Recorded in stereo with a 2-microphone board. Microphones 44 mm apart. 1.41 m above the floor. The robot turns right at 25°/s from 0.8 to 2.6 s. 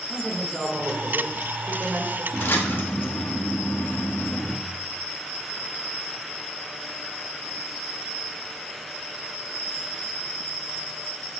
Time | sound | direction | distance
0.1 | a man speaking | straight behind | 1.7 m
2.3 | a splash | 60° left (ahead or behind) | 1.3 m